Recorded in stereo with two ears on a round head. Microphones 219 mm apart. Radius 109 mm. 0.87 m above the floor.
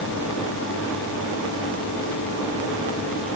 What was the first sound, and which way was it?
Only background noise.